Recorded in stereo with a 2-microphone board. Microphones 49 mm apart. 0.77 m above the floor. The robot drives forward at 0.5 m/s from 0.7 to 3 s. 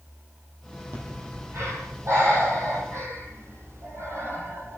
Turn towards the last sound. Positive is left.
turn(degrees=-65)  # may be behind; listen again after turning